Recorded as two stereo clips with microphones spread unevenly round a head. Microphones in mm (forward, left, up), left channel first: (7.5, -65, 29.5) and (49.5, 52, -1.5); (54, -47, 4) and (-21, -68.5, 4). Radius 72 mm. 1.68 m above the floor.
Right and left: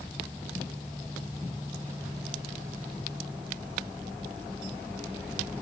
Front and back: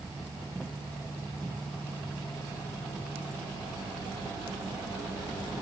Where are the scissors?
I don't hear scissors.